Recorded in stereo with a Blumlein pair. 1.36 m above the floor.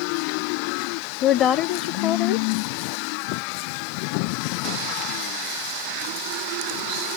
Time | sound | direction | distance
1.2 | a woman speaking | 30° left | 0.6 m